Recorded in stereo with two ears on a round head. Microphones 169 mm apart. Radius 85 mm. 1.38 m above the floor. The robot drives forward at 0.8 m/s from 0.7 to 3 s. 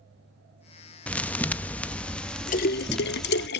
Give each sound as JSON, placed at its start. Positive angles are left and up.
{"t": 1.1, "sound": "a thud", "side_deg": 5, "distance_m": 0.7}
{"t": 2.5, "sound": "a splash", "side_deg": 45, "distance_m": 0.7}